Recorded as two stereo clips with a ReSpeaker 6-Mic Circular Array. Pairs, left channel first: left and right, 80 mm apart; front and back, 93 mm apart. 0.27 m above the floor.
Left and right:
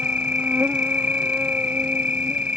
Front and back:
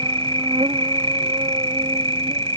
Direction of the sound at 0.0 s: 160° right.